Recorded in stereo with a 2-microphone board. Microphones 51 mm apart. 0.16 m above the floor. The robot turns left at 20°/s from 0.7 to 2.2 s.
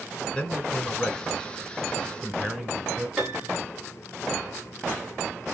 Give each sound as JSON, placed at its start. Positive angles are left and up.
{"t": 0.3, "sound": "a man speaking", "azimuth_deg": 30, "distance_m": 1.4}
{"t": 3.2, "sound": "a piano", "side_deg": -5, "distance_m": 1.2}